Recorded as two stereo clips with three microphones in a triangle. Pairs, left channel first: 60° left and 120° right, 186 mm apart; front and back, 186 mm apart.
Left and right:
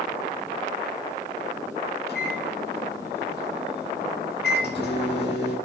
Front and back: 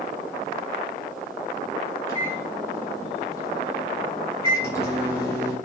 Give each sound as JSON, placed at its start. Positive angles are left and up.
{"t": 2.1, "sound": "a microwave", "azimuth_deg": 75, "distance_m": 5.5}